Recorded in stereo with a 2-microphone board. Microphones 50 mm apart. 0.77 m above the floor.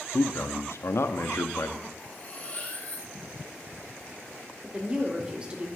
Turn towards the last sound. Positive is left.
turn(degrees=-20)  # may be behind; listen again after turning